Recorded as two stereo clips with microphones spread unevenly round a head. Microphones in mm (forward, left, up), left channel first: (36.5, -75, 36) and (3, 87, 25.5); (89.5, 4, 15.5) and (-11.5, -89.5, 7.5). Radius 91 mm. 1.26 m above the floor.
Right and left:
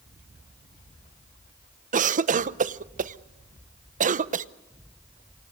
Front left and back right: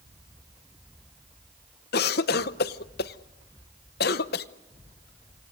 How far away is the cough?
About 0.8 m.